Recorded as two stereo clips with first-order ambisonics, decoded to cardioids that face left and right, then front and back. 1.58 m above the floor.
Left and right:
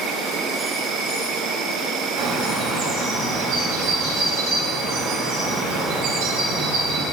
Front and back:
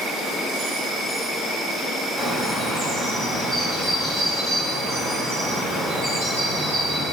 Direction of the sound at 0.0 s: 65° right.